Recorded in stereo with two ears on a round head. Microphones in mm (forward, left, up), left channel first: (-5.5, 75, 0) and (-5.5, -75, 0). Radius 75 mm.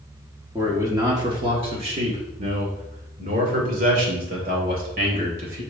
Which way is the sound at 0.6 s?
15° right (ahead or behind).